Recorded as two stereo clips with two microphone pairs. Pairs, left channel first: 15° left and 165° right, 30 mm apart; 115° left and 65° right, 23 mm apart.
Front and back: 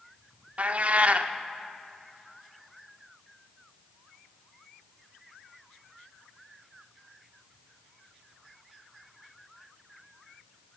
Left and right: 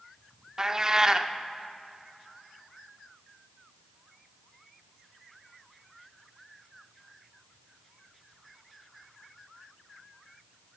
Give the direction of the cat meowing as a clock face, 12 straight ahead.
4 o'clock.